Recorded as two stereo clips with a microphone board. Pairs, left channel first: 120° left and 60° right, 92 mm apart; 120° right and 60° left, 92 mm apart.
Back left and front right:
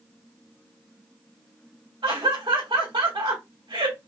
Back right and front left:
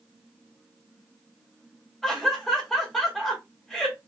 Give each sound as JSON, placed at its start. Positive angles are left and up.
{"t": 2.0, "sound": "laughter", "azimuth_deg": -30, "distance_m": 1.9}